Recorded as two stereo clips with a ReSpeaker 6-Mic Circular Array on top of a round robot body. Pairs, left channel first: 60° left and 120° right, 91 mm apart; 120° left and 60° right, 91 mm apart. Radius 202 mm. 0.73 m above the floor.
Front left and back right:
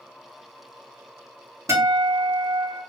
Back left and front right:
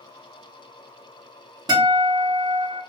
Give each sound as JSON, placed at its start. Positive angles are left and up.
{"t": 1.7, "sound": "a guitar", "azimuth_deg": -75, "distance_m": 1.5}